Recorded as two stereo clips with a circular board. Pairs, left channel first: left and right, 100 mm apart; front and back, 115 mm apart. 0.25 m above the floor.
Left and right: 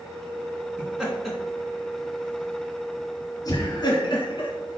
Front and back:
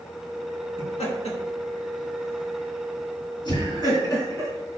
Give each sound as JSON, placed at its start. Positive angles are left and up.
{"t": 0.8, "sound": "laughter", "azimuth_deg": -10, "distance_m": 3.5}